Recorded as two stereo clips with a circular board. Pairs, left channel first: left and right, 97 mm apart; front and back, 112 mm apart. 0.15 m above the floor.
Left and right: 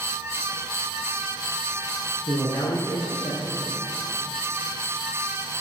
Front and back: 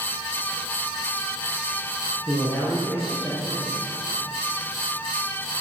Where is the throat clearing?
I don't hear throat clearing.